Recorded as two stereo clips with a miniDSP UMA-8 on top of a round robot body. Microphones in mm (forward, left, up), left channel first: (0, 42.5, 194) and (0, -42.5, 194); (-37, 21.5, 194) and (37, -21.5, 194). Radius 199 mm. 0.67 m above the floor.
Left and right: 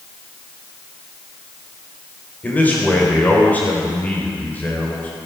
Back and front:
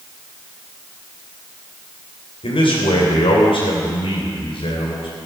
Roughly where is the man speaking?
Behind.